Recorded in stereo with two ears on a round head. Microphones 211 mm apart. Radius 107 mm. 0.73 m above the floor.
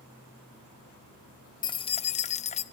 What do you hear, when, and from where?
1.6 s keys jangling: 20° left (ahead or behind), 0.5 m; by 2.6 s 30° left (ahead or behind), 0.6 m